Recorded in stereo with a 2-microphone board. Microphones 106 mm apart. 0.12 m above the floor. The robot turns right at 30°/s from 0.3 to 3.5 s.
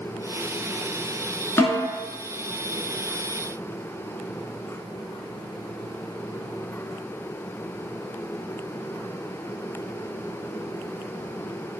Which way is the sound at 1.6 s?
25° left (ahead or behind).